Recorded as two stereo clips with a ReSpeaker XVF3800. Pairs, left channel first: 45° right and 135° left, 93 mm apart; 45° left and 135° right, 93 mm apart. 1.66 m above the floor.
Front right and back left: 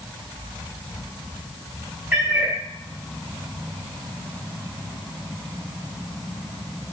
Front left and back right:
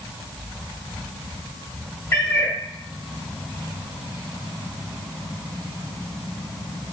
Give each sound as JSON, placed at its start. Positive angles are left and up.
{"t": 2.1, "sound": "a cat meowing", "azimuth_deg": 75, "distance_m": 0.9}